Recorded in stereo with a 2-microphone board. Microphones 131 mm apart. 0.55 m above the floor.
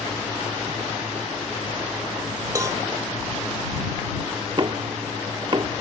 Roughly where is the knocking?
Right.